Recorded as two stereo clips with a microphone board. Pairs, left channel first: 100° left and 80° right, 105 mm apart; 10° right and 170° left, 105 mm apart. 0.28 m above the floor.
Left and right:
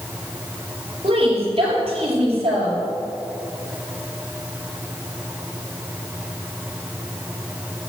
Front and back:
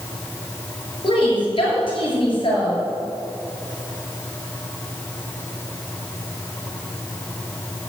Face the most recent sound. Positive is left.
turn(degrees=-55)